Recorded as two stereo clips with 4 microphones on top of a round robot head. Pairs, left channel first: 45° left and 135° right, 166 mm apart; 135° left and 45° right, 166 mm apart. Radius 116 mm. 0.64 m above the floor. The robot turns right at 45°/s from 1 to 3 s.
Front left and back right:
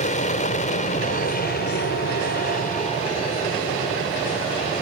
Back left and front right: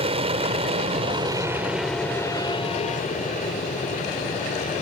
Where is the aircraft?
5° left; by 4.8 s 95° left.